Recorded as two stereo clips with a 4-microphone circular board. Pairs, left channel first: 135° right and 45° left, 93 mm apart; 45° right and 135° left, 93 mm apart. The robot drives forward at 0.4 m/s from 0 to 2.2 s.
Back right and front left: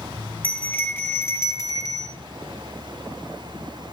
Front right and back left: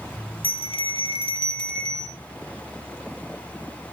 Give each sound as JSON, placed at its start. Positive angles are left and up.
{"t": 0.4, "sound": "a bell", "azimuth_deg": -60, "distance_m": 1.4}